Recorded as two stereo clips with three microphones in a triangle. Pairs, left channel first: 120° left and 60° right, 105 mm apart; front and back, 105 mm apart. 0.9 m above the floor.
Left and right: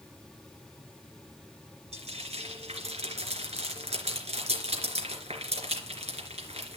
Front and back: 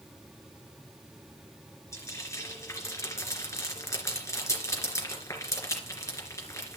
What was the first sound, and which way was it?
Frying, 60° right.